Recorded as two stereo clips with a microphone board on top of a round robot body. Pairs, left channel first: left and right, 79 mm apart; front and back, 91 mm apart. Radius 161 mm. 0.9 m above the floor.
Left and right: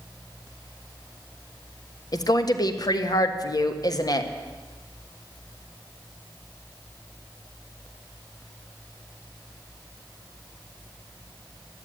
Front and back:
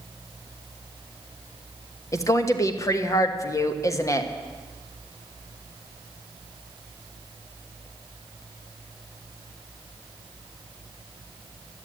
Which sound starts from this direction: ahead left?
A woman speaking, at 2.1 s.